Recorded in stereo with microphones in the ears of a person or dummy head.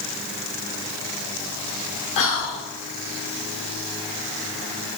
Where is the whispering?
30° left (ahead or behind), 0.5 m.